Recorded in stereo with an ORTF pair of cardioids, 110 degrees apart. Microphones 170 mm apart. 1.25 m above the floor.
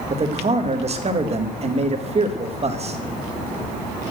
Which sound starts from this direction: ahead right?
A man speaking, at 0.1 s.